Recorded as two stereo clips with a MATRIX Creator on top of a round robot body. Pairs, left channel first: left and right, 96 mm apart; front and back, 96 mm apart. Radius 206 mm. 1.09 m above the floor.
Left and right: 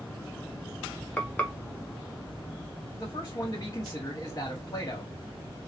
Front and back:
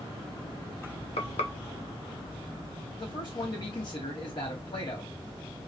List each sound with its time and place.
1.2 s frying: 10° left, 1.0 m
3.0 s a man speaking: 35° left, 2.5 m